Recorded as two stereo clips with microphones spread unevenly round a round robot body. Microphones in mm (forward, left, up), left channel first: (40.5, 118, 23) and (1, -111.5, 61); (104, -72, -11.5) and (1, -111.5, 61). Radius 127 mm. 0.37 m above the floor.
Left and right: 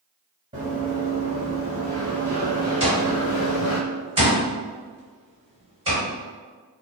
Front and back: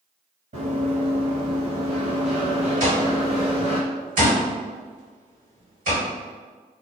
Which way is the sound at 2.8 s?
170° right.